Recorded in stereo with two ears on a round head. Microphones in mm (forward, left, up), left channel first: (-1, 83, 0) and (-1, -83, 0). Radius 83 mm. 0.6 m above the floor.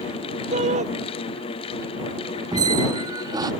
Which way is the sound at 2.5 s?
20° right (ahead or behind).